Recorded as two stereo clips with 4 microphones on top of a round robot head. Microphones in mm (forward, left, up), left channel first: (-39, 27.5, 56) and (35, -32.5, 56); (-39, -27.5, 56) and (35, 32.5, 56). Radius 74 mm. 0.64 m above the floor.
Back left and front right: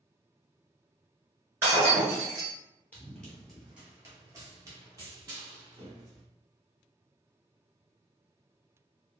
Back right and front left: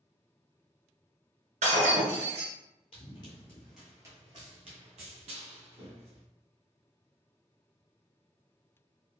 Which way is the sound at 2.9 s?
150° right.